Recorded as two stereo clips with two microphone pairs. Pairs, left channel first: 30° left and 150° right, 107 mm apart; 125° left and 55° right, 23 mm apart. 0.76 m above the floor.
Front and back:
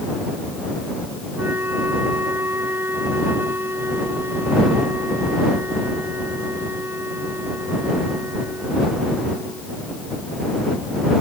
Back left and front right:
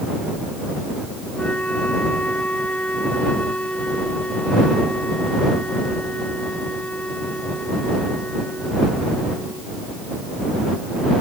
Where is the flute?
140° left.